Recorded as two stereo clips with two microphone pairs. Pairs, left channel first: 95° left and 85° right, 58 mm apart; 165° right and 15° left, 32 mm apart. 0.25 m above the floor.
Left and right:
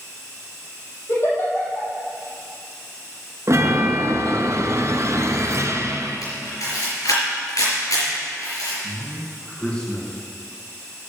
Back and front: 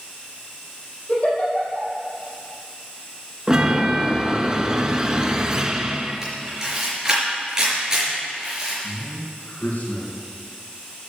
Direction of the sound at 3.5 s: 50° right.